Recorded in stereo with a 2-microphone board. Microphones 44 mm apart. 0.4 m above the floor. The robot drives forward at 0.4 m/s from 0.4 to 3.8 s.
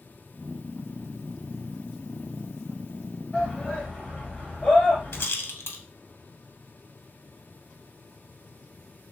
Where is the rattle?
65° left (ahead or behind), 0.6 m.